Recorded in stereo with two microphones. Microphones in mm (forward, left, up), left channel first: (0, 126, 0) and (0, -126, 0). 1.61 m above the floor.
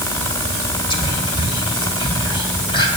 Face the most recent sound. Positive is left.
turn(degrees=15)  # may be behind; listen again after turning